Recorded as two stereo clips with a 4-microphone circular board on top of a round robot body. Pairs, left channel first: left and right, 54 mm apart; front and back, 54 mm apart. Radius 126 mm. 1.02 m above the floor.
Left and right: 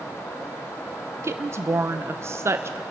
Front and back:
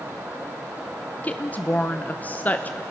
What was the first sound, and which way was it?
A woman speaking, 60° right.